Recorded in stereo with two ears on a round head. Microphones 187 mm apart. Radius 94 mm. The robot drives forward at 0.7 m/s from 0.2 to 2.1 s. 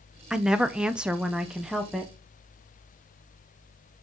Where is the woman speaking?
5° right (ahead or behind), 0.7 m; by 2.1 s centre (ahead or behind), 0.9 m.